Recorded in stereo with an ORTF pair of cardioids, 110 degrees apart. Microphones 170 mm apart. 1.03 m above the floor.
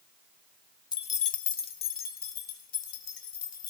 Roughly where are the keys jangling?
Ahead left.